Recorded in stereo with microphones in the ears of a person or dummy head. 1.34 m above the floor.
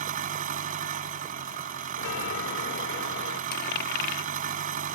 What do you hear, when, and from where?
0.0 s an engine running: 50° right (ahead or behind)
2.0 s a chime: 75° left (ahead or behind)
3.5 s a dropped coin: 55° left (ahead or behind)